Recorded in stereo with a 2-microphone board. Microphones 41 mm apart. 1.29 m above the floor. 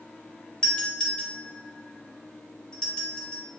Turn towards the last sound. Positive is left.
turn(degrees=20)  # may be behind; listen again after turning